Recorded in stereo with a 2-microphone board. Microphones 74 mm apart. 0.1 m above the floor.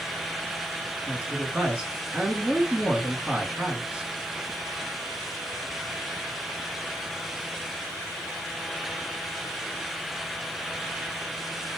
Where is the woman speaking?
15° right (ahead or behind), 1.1 m.